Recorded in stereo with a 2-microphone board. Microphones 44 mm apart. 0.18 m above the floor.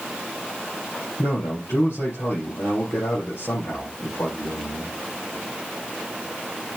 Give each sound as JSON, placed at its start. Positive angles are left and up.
{"t": 1.2, "sound": "a man speaking", "side_deg": 65, "distance_m": 4.5}